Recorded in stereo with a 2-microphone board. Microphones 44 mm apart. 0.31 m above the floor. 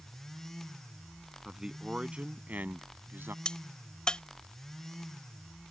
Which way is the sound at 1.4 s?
15° right (ahead or behind).